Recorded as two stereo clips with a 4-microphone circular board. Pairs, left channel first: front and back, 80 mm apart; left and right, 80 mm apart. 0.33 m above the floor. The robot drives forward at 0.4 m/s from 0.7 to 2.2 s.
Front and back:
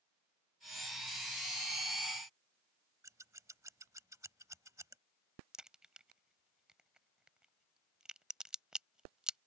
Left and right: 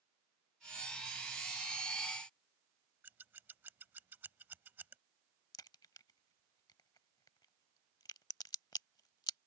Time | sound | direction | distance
3.0 | scissors | 145° right | ?
5.5 | a crack | 100° left | ?